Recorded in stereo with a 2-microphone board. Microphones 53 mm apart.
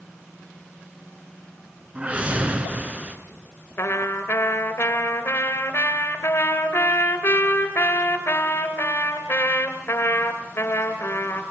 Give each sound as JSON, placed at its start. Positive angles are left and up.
{"t": 1.9, "sound": "a whoosh", "side_deg": -30, "distance_m": 2.0}
{"t": 3.8, "sound": "a trumpet", "side_deg": 50, "distance_m": 2.5}